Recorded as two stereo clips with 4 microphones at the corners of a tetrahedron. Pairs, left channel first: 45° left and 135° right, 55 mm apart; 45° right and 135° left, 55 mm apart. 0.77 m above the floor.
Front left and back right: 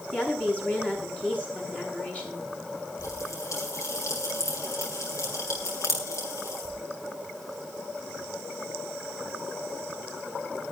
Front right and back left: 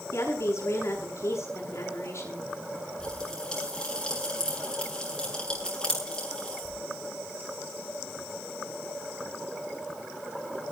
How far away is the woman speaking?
About 8 m.